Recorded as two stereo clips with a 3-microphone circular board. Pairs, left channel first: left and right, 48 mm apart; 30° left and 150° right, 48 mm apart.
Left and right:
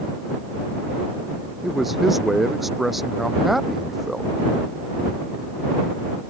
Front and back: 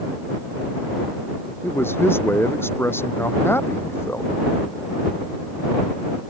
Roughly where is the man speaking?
Ahead.